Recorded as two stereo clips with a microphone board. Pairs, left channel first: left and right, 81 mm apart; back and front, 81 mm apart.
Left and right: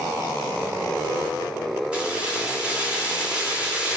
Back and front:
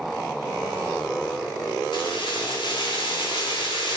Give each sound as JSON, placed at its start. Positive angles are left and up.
{"t": 1.9, "sound": "keys jangling", "azimuth_deg": -165, "distance_m": 1.4}